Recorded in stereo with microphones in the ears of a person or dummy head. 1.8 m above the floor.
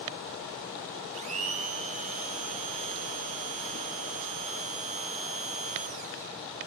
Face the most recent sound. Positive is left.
turn(degrees=-40)  # may be behind; listen again after turning